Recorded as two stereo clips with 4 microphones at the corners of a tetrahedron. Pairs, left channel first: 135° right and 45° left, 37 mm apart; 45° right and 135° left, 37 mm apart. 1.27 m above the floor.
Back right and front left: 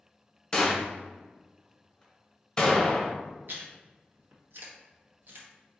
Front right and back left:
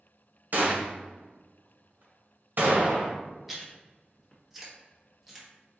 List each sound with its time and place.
0.5 s a gunshot: 155° left, 1.0 m
3.5 s chewing: 50° left, 1.0 m